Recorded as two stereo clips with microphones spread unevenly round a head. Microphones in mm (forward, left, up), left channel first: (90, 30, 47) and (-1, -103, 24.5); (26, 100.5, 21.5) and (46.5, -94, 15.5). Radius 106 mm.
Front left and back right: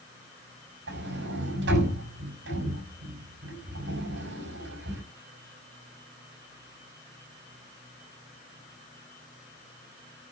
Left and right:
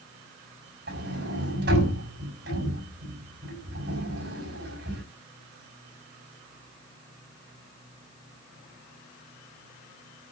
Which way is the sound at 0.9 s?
130° right.